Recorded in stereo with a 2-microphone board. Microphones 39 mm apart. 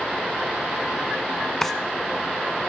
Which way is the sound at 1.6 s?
10° left (ahead or behind).